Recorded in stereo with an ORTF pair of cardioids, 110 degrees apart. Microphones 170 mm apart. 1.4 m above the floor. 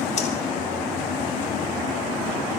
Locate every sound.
0.2 s breathing: 45° left, 3 m